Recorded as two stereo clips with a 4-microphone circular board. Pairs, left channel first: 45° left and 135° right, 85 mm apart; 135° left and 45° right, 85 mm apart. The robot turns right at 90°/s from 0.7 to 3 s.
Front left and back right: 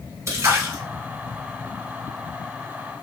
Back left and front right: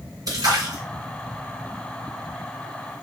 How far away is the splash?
About 2.5 m.